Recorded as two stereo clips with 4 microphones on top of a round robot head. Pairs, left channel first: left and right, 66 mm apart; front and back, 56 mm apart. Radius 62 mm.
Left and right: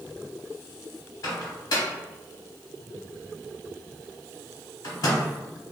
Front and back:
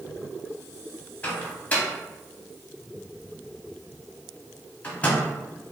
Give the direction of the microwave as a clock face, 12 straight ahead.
10 o'clock.